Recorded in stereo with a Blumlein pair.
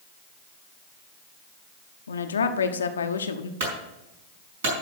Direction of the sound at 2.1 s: 70° left.